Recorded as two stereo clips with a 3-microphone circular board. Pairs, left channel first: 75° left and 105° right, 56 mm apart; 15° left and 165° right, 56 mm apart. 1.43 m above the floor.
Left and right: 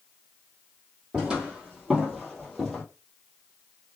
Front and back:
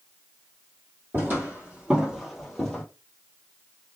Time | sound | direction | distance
1.1 | footsteps | 165° right | 1.8 m